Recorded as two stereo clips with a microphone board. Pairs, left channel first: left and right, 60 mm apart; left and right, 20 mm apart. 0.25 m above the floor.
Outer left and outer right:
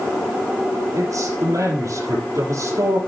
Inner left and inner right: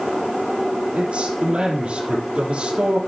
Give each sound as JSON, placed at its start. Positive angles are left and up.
{"t": 0.9, "sound": "a man speaking", "side_deg": -70, "distance_m": 5.0}